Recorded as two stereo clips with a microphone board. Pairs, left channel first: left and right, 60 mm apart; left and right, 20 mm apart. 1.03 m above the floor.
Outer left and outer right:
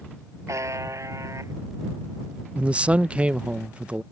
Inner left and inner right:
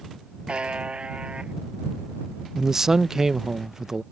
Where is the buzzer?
50° right (ahead or behind).